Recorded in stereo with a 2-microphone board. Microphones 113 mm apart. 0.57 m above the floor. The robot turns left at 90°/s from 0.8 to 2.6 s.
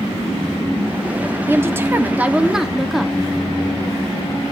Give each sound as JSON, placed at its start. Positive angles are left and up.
{"t": 1.5, "sound": "a woman speaking", "side_deg": -20, "distance_m": 0.6}